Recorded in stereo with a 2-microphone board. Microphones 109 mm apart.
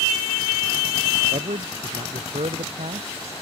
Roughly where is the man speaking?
Right.